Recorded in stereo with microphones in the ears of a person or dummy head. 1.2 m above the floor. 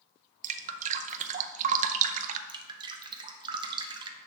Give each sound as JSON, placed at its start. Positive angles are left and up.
{"t": 0.4, "sound": "dripping", "side_deg": -35, "distance_m": 0.6}
{"t": 2.5, "sound": "dripping", "side_deg": -20, "distance_m": 1.1}